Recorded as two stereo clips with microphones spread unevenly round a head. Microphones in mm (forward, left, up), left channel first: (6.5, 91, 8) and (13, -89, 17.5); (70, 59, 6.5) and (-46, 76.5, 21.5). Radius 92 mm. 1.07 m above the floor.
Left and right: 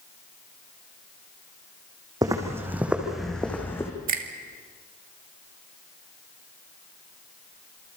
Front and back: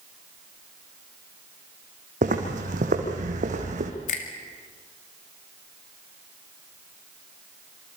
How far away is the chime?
I don't hear a chime.